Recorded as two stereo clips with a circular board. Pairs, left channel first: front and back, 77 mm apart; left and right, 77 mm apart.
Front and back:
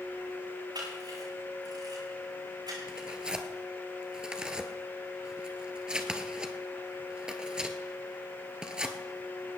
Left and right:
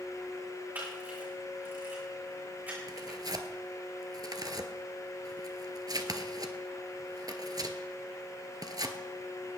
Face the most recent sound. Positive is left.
turn(degrees=-105)